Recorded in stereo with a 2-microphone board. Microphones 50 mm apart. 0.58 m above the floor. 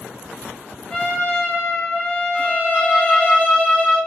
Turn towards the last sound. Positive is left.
turn(degrees=0)  # may be behind; listen again after turning